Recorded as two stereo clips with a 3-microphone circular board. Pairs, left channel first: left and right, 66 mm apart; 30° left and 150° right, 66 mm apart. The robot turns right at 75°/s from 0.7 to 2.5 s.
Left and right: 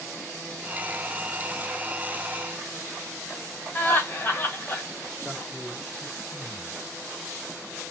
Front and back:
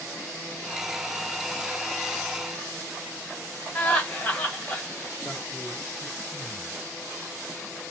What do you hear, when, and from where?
3.8 s laughter: 75° left, 1.4 m
5.2 s a man speaking: 10° left, 1.4 m